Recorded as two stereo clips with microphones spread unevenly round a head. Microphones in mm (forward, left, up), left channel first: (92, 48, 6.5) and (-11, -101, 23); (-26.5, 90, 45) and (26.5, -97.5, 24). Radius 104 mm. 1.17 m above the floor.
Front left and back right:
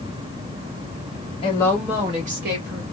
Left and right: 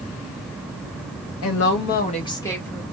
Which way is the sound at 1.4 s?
120° left.